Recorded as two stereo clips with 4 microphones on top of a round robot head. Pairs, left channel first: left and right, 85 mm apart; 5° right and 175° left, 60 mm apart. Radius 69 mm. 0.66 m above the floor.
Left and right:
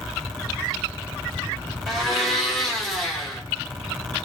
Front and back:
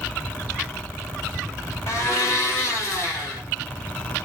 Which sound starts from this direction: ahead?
A blender, at 1.9 s.